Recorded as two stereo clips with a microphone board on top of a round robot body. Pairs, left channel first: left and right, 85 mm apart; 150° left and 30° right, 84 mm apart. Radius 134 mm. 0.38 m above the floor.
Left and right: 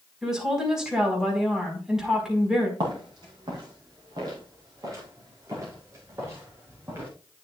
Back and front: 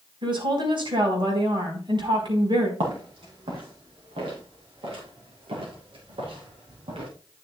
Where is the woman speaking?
5° right, 5 m.